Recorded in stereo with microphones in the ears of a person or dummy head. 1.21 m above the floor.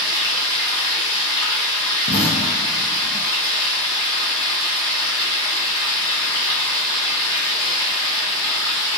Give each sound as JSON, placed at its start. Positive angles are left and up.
{"t": 0.0, "sound": "running water", "side_deg": 25, "distance_m": 1.4}
{"t": 2.1, "sound": "an explosion", "side_deg": 40, "distance_m": 0.6}